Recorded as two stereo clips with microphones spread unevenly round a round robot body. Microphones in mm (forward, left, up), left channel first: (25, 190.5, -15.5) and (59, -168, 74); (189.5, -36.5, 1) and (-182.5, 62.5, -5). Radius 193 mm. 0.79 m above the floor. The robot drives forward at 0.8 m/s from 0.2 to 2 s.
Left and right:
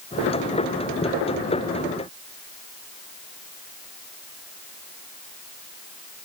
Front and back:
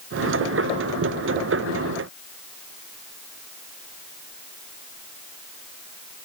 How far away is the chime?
No chime in this recording.